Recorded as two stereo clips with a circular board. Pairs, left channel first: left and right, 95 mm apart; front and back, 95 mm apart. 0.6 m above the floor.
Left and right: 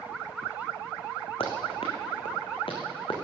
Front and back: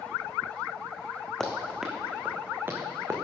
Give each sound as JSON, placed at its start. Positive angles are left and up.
{"t": 1.4, "sound": "running footsteps", "azimuth_deg": 85, "distance_m": 2.5}